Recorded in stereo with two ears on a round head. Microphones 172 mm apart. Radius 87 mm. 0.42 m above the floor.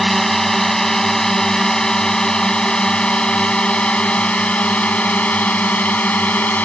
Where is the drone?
Centre (ahead or behind); by 6.7 s 10° left (ahead or behind).